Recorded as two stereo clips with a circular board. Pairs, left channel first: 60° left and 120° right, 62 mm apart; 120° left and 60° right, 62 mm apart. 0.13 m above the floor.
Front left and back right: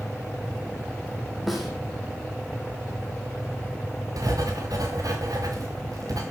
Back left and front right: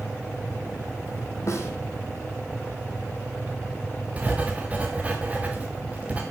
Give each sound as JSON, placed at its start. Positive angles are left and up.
{"t": 1.5, "sound": "a snare drum", "azimuth_deg": 150, "distance_m": 4.0}
{"t": 4.2, "sound": "writing", "azimuth_deg": -125, "distance_m": 3.0}